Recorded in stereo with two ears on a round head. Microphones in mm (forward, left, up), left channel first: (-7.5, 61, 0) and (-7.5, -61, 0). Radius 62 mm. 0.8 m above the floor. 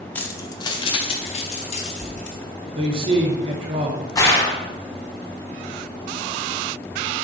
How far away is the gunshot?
About 1.9 m.